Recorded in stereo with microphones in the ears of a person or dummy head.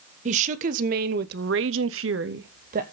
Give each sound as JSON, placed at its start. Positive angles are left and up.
{"t": 0.2, "sound": "a woman speaking", "side_deg": -40, "distance_m": 1.4}